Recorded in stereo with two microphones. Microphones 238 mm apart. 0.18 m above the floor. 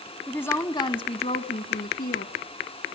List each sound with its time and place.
0.3 s a woman speaking: 5° left (ahead or behind), 1.2 m; by 2.3 s 45° left (ahead or behind), 1.6 m